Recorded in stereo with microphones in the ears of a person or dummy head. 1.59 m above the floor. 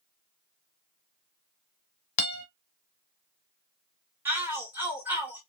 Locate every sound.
2.2 s a guitar: 40° left (ahead or behind), 1.1 m
4.2 s a shout: 10° right (ahead or behind), 1.4 m